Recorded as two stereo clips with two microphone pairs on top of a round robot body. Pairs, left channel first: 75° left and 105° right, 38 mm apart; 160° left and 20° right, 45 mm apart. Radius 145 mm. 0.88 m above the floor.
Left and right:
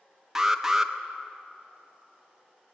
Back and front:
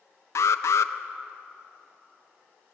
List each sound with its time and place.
0.3 s an alarm: 175° left, 0.7 m